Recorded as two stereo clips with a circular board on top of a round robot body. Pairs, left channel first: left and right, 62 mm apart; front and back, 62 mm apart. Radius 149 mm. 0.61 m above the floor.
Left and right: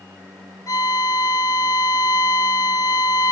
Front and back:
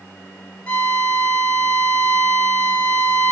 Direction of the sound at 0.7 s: 70° left.